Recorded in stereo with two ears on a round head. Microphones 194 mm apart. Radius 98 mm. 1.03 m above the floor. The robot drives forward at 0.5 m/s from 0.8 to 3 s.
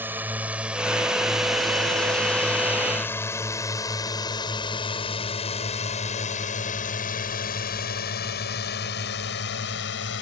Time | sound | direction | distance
0.0 | a drone | 10° right (ahead or behind) | ?